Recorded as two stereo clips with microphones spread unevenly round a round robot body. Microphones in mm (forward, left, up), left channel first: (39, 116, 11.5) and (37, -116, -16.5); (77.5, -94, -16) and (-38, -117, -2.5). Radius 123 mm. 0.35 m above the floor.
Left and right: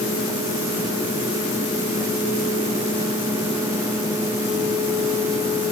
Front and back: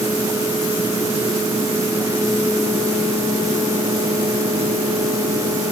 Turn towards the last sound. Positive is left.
No sound to turn to.